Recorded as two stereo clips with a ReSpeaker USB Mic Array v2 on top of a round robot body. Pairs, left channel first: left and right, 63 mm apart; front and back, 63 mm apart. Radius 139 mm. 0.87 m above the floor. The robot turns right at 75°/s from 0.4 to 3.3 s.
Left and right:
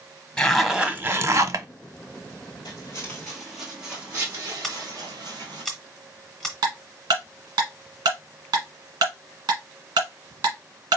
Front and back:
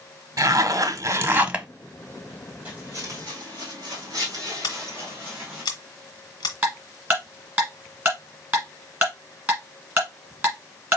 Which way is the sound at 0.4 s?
165° left.